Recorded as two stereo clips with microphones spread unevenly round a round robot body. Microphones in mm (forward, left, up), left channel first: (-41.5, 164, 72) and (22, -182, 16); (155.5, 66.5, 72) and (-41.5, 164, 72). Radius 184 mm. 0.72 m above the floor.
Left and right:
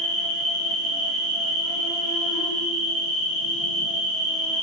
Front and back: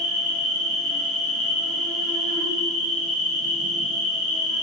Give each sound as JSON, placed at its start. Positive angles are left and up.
{"t": 0.0, "sound": "an insect", "azimuth_deg": -40, "distance_m": 2.0}